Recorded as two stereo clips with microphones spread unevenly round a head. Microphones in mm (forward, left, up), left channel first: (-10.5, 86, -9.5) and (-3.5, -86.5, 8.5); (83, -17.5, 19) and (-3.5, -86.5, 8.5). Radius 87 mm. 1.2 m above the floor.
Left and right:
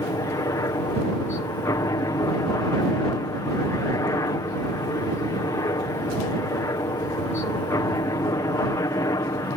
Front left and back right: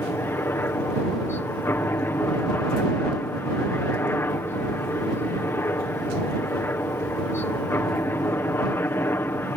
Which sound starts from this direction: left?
A helicopter, at 0.0 s.